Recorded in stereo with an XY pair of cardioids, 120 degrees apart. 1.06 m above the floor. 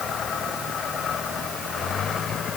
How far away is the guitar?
No guitar in this recording.